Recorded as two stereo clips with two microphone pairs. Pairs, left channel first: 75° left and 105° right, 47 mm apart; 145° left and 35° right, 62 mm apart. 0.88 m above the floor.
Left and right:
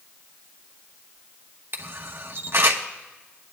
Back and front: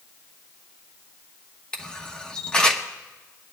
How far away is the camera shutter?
About 1.0 m.